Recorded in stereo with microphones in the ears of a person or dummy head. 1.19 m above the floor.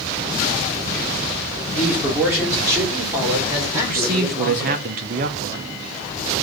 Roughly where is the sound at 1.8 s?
Centre.